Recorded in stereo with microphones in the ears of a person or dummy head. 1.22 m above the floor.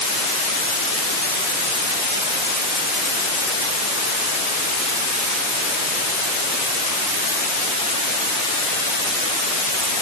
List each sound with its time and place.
Only background noise.